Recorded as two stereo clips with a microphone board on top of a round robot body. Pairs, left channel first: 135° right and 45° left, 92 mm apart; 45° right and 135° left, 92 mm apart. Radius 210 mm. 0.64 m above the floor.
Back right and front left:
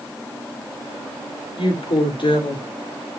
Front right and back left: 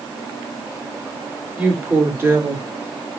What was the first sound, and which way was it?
A woman speaking, 155° right.